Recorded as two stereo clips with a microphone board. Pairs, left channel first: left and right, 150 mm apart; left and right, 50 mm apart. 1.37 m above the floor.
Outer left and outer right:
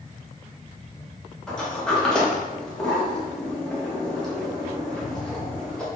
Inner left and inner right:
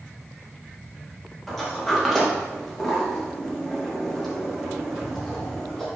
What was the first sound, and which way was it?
A sliding door, 5° left (ahead or behind).